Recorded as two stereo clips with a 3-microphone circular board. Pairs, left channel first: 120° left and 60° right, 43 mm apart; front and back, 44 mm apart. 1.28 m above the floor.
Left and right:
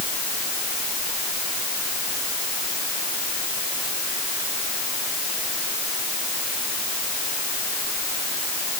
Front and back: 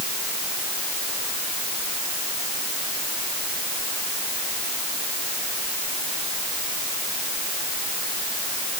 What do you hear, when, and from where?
Only background noise.